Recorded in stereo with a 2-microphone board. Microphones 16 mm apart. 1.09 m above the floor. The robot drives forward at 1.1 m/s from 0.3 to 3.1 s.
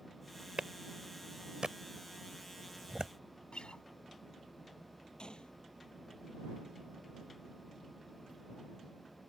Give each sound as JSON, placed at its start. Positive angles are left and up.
{"t": 0.6, "sound": "a clap", "side_deg": -75}
{"t": 3.5, "sound": "a guitar", "side_deg": 85}
{"t": 5.2, "sound": "a gunshot", "side_deg": 65}